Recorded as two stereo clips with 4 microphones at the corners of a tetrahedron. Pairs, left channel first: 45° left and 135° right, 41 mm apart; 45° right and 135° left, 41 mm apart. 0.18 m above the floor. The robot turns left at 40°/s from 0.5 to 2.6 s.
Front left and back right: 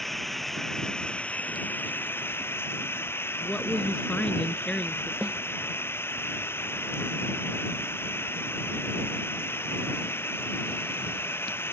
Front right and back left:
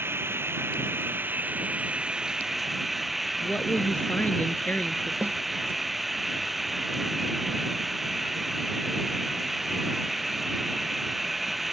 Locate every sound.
0.0 s running water: 130° left; by 11.7 s 50° left
3.4 s a woman speaking: 10° right
5.2 s a snare drum: 175° left